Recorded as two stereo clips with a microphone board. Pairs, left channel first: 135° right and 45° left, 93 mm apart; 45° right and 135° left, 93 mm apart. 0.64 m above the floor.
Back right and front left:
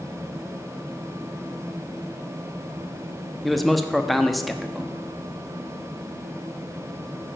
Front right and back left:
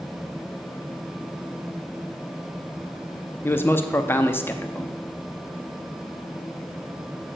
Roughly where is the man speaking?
Ahead right.